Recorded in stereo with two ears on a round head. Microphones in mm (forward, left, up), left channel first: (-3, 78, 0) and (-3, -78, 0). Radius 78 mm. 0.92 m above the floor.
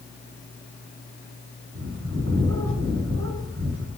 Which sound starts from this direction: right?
A bird, at 1.8 s.